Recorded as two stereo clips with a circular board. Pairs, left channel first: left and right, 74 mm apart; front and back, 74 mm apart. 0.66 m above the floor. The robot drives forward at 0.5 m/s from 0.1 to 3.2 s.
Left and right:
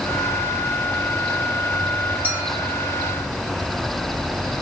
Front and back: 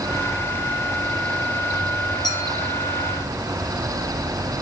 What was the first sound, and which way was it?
A clink, 25° right.